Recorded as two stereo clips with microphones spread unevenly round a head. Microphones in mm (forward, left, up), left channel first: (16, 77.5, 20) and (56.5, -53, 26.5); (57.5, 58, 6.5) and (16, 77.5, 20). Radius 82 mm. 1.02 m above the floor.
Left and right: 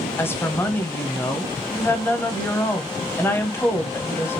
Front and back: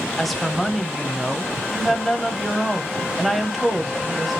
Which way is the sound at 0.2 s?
45° left.